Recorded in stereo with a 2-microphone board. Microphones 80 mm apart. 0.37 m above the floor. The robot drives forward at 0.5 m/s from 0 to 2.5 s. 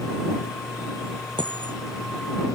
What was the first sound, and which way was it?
A dropped coin, 80° right.